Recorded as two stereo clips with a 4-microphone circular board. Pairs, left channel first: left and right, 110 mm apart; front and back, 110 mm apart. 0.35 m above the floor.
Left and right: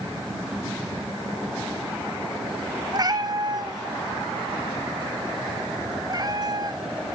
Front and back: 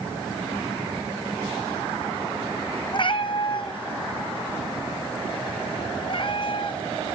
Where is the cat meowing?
40° right, 1.3 m.